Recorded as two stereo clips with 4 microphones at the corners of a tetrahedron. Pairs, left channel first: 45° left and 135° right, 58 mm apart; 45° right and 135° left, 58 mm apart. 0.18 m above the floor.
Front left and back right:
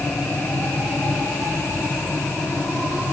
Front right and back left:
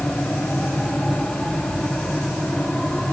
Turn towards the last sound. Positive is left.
No sound to turn to.